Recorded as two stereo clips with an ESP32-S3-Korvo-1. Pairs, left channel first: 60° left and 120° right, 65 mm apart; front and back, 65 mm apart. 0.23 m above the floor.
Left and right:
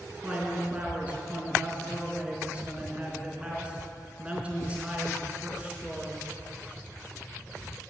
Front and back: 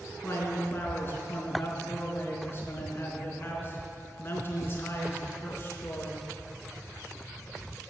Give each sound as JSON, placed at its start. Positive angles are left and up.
{"t": 0.2, "sound": "a man speaking", "azimuth_deg": -50, "distance_m": 3.5}